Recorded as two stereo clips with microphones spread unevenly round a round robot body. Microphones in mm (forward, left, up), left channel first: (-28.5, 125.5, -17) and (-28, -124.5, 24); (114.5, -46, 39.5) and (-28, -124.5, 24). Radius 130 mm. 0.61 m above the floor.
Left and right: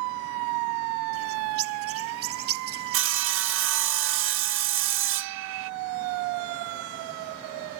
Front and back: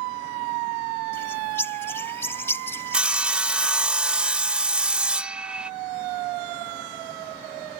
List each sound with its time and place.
1.1 s a bird: 45° right
2.9 s sawing: 80° right